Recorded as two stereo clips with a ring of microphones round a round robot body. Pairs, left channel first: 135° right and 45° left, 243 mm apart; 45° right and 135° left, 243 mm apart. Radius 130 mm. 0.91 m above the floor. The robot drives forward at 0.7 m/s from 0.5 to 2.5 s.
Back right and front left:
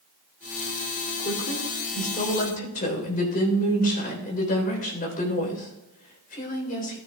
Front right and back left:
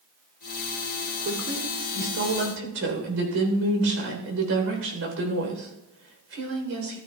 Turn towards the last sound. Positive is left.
turn(degrees=170)